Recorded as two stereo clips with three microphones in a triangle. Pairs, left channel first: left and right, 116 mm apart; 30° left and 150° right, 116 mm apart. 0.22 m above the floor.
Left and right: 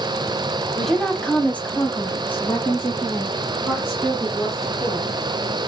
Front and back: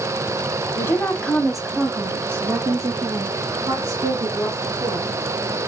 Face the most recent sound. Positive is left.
turn(degrees=160)